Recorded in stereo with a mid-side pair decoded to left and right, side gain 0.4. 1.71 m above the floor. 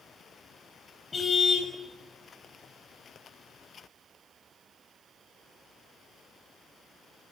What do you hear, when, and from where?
1.1 s a car horn: 40° left, 6 m